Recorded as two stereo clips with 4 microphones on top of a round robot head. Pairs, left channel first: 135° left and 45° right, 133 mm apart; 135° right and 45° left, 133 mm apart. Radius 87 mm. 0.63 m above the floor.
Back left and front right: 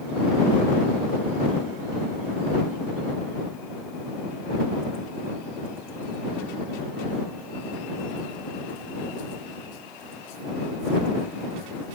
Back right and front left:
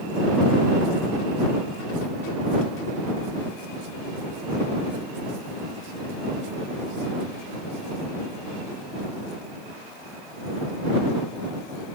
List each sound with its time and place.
Only background noise.